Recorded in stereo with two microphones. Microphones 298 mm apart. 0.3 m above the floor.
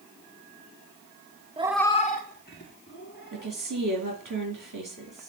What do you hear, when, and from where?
1.6 s a cat meowing: 20° right (ahead or behind), 0.5 m; by 3.5 s 35° left (ahead or behind), 2.5 m
3.3 s a woman speaking: 75° right (ahead or behind), 4.5 m